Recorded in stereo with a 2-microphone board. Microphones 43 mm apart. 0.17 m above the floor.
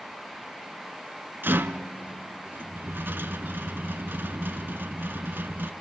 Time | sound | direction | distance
1.4 | a rattle | 60° right (ahead or behind) | 0.9 m